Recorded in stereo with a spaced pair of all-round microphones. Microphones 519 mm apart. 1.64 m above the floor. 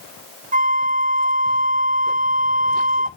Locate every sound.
0.5 s a flute: 15° right (ahead or behind), 1.0 m